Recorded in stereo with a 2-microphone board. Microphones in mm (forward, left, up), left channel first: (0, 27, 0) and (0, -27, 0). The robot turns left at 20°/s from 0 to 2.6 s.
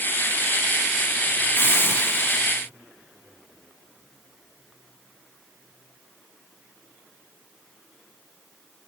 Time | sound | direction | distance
1.6 | a hiss | 40° left (ahead or behind) | 1.2 m